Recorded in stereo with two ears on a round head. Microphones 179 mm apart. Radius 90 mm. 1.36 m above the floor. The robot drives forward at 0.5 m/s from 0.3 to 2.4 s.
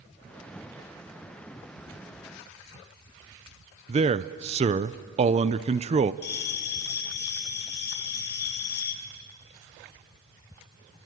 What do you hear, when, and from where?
3.9 s a man speaking: 30° right (ahead or behind), 0.5 m
6.2 s a bell: 55° left (ahead or behind), 2.0 m